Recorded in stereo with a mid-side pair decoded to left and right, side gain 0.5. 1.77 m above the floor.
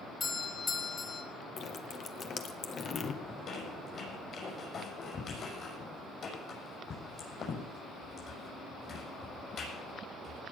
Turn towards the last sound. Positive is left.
turn(degrees=50)